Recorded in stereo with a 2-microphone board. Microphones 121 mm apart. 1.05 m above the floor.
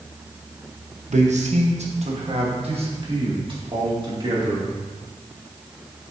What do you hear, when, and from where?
1.1 s a man speaking: 75° right (ahead or behind), 0.9 m; by 4.7 s 40° right (ahead or behind), 2.5 m